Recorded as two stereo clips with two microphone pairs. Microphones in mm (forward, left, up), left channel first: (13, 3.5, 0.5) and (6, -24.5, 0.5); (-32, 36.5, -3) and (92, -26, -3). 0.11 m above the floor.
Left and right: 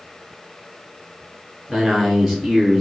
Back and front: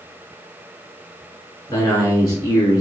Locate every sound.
1.7 s a man speaking: 155° left, 1.1 m